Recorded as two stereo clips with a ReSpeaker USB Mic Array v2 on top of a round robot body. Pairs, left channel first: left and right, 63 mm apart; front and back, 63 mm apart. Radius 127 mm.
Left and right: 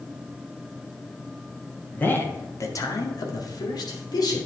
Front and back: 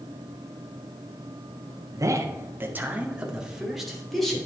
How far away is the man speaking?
About 1.8 m.